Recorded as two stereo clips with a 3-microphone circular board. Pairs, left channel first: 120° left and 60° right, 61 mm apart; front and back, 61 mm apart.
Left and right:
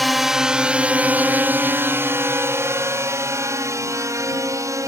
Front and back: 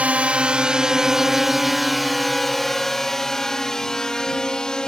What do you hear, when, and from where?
0.0 s a drone: 150° right; by 4.9 s 75° right